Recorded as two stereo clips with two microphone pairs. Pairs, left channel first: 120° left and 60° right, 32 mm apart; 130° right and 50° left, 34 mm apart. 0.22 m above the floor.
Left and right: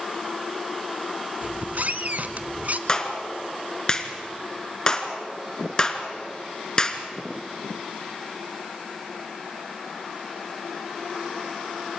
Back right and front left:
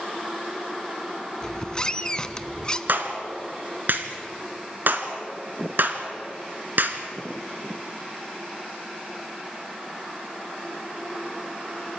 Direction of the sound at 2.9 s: 50° left.